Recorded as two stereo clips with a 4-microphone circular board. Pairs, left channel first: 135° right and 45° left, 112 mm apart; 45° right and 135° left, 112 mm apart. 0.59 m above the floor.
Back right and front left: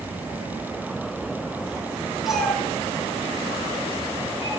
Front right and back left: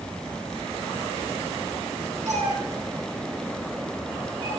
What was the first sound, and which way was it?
A cat meowing, 130° left.